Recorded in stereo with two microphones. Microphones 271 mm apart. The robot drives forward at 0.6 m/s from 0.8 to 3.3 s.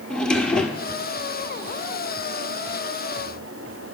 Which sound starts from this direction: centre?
A drawer, at 0.1 s.